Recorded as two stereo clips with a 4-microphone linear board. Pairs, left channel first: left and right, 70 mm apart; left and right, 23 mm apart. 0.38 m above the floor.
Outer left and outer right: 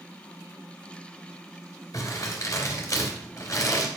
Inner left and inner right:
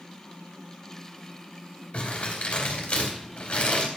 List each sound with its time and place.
1.9 s crumpling: 60° left (ahead or behind), 2.5 m